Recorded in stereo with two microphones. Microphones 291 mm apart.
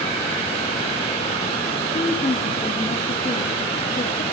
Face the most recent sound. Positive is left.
turn(degrees=25)  # may be behind; listen again after turning